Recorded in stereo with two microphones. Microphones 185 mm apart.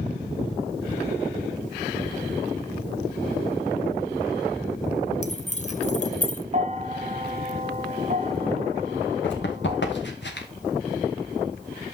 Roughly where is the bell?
Right.